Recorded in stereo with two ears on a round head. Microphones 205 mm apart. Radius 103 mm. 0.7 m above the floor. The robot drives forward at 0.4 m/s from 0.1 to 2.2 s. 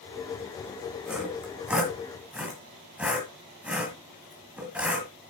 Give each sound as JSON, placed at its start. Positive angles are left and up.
{"t": 1.1, "sound": "sawing", "side_deg": -5, "distance_m": 2.5}